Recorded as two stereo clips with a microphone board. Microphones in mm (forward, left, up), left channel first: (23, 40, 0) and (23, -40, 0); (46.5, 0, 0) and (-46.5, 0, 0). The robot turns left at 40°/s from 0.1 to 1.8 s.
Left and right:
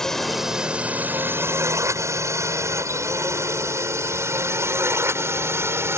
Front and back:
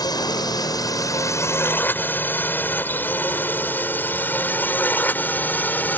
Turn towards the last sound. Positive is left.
turn(degrees=-55)